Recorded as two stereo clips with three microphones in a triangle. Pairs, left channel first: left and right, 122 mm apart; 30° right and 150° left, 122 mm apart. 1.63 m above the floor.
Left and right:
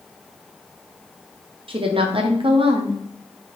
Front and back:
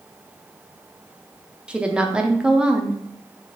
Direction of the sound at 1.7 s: 130° right.